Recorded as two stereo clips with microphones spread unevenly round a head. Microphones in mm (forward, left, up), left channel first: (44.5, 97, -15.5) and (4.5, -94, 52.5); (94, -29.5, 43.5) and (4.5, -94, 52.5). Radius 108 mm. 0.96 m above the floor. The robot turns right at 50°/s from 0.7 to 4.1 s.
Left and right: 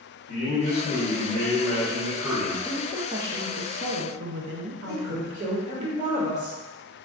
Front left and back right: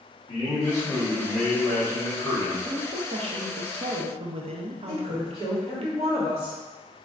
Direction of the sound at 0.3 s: 95° left.